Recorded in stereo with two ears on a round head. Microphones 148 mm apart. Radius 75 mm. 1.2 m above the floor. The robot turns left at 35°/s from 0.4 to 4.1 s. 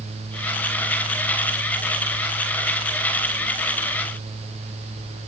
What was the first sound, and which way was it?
Only background noise.